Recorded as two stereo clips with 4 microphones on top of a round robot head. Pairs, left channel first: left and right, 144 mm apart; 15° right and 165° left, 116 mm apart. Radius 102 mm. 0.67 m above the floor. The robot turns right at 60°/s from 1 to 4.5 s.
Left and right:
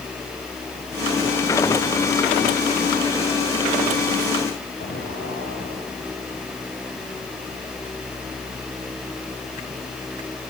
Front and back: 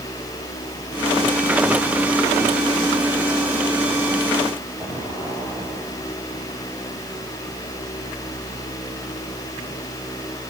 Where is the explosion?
90° left, 8.5 m.